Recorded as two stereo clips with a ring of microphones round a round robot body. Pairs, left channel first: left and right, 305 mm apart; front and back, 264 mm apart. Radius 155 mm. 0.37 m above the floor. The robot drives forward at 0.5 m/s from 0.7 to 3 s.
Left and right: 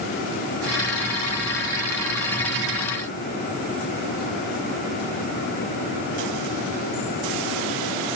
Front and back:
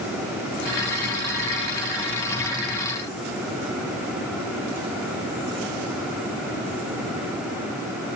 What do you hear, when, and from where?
Only background noise.